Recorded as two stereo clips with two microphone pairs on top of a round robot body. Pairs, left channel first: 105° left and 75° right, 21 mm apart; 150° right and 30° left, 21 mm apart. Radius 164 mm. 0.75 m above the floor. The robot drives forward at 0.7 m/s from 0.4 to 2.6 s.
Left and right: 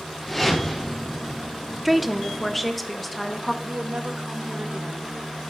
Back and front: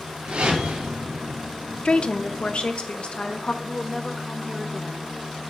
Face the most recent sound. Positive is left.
turn(degrees=-65)